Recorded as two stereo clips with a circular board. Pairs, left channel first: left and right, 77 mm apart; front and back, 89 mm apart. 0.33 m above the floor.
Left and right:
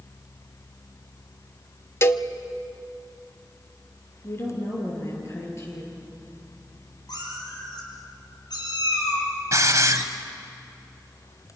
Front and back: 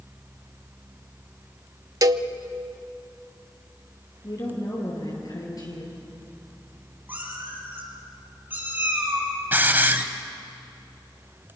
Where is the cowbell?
140° left, 0.6 m.